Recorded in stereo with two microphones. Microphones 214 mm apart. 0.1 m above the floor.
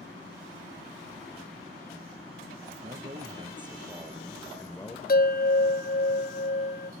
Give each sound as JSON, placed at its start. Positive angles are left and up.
{"t": 2.8, "sound": "a man speaking", "side_deg": -40, "distance_m": 1.9}
{"t": 5.1, "sound": "a bell", "side_deg": 45, "distance_m": 0.5}